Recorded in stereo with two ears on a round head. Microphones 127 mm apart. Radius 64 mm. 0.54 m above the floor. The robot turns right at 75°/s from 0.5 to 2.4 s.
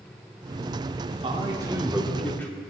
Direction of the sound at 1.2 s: 70° right.